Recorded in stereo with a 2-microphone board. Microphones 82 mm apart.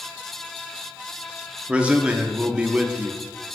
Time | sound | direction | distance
1.7 | a man speaking | 15° right (ahead or behind) | 1.0 m